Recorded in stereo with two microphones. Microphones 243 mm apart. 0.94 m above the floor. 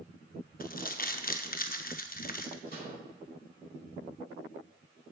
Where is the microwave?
40° left (ahead or behind), 3.5 m.